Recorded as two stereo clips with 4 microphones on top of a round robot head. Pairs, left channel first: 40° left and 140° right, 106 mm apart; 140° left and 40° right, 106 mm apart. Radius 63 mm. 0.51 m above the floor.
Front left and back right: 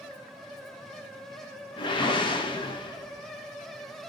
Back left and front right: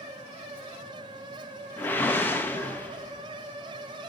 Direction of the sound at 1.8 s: 70° left.